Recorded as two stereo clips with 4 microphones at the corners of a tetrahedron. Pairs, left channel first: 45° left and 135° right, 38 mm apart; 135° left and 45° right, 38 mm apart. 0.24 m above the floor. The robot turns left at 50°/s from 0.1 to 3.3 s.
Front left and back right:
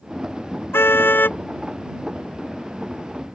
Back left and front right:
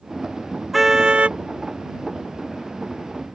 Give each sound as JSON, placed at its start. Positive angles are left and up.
{"t": 0.7, "sound": "a car horn", "azimuth_deg": 40}